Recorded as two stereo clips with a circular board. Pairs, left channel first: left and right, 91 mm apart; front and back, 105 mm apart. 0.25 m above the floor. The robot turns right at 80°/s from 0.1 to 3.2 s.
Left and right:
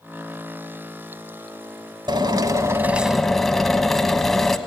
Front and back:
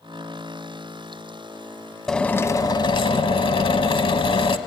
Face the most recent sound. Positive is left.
turn(degrees=5)